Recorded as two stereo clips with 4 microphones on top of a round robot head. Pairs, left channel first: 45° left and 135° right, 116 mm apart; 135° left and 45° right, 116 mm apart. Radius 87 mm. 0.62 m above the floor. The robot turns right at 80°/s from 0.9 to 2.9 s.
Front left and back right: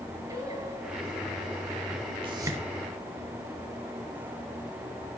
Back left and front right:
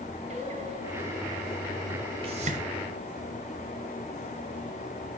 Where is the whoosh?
90° right, 4 m; by 2.6 s 60° right, 4 m.